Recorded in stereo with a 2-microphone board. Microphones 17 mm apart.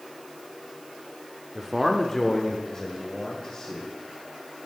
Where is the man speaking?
20° right (ahead or behind), 0.7 m; by 3.9 s 55° left (ahead or behind), 2.5 m.